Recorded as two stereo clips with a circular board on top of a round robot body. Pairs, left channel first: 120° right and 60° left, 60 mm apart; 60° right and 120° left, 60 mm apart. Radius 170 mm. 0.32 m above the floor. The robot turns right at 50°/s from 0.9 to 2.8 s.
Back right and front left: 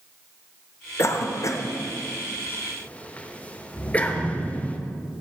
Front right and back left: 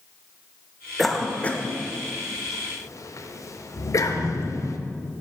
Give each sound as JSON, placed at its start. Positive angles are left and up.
{"t": 1.0, "sound": "a cough", "azimuth_deg": -145, "distance_m": 1.4}